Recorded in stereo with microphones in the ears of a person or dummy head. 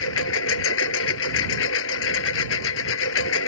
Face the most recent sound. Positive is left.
turn(degrees=65)  # may be behind; listen again after turning